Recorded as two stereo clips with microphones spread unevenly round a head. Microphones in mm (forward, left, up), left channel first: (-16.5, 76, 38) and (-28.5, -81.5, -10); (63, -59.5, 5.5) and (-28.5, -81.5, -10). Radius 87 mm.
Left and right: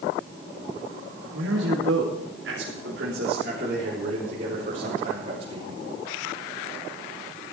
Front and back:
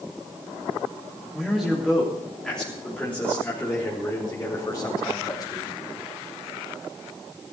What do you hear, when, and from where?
1.3 s a man speaking: 80° right, 3.5 m; by 5.8 s 35° right, 4.5 m